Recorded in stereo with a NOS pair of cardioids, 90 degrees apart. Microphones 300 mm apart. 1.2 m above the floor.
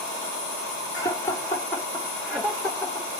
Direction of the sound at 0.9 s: 10° left.